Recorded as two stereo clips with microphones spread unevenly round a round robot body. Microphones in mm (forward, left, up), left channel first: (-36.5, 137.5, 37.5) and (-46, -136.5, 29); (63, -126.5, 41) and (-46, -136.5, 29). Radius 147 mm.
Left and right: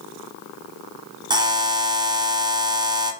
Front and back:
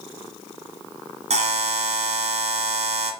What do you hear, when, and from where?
1.3 s a buzzer: 165° right, 1.3 m